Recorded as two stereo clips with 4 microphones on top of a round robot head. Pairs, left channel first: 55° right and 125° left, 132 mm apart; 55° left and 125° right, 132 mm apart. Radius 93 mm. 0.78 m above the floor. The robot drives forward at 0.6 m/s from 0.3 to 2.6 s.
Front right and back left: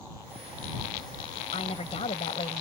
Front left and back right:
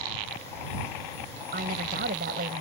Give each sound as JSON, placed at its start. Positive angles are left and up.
{"t": 1.5, "sound": "a woman speaking", "azimuth_deg": -105}